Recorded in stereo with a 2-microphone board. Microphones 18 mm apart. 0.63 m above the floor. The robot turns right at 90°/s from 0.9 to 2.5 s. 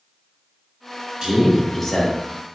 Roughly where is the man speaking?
Ahead right.